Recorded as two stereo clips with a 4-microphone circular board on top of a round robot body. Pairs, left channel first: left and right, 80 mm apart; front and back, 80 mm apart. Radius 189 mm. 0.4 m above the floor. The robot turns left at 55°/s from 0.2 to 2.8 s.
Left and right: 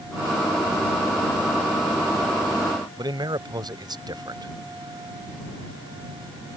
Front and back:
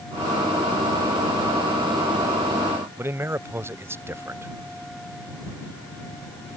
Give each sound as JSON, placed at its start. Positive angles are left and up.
{"t": 3.0, "sound": "a man speaking", "azimuth_deg": -120}